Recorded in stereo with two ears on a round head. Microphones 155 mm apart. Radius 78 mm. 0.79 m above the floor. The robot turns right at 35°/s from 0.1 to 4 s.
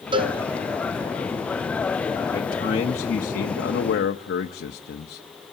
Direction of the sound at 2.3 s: 20° left.